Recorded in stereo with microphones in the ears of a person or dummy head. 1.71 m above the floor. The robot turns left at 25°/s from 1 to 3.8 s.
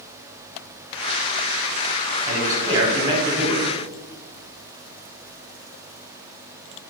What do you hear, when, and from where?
2.2 s a man speaking: 145° right, 0.8 m; by 3.6 s straight behind, 0.8 m